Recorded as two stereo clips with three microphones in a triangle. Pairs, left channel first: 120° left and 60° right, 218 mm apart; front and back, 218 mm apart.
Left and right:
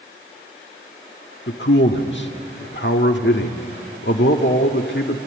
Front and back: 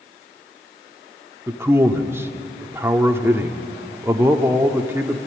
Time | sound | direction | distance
1.5 | a man speaking | 105° left | 1.5 m